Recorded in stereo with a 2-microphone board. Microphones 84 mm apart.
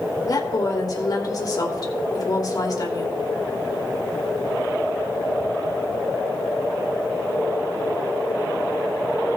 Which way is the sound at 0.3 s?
45° left (ahead or behind).